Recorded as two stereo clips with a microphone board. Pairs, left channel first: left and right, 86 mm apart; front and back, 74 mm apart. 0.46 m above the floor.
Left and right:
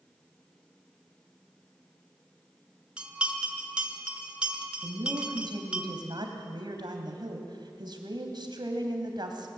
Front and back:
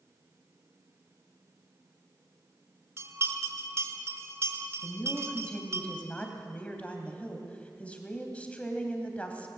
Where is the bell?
160° right, 1.7 m.